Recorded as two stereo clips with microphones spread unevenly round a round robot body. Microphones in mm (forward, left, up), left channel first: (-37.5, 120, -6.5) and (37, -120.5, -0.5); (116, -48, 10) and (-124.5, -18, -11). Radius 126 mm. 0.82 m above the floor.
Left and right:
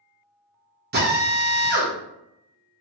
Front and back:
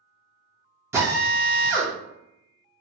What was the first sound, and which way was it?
A drill, 115° right.